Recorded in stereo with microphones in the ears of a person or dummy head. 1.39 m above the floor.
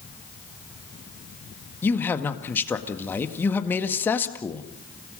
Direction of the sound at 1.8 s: 10° left (ahead or behind).